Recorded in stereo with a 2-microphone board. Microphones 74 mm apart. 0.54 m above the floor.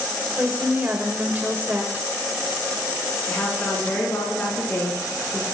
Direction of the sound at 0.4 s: 25° right (ahead or behind).